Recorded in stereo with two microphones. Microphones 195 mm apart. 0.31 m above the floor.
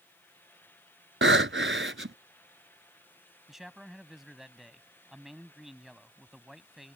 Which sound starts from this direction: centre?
A man speaking, at 3.5 s.